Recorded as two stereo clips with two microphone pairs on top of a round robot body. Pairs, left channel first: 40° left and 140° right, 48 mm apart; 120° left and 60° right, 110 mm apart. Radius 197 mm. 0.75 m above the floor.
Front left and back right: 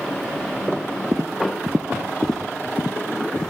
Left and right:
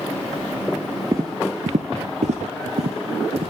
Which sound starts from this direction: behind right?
Footsteps, at 1.1 s.